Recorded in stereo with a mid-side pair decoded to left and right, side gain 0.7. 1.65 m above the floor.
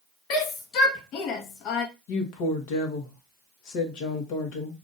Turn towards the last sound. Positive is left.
turn(degrees=65)